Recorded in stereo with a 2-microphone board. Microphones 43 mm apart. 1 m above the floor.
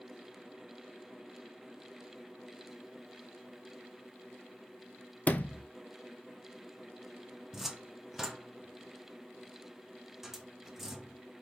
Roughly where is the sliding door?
Left.